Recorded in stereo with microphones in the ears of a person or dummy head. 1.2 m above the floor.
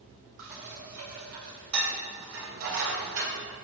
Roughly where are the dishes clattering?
Right.